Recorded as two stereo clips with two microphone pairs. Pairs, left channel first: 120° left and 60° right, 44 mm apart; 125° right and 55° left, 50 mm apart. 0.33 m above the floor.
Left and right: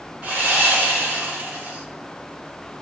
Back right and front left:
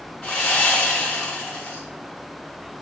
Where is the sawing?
70° right, 1.7 m.